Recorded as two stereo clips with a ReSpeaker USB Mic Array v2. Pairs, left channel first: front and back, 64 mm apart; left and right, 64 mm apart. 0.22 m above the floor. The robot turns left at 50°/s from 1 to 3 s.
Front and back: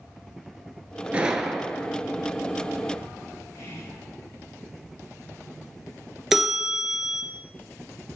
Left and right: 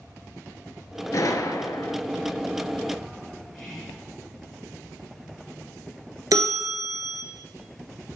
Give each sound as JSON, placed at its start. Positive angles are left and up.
{"t": 1.1, "sound": "a gunshot", "azimuth_deg": 110, "distance_m": 0.6}
{"t": 3.5, "sound": "whispering", "azimuth_deg": 0, "distance_m": 2.0}
{"t": 6.3, "sound": "a bell", "azimuth_deg": -100, "distance_m": 0.9}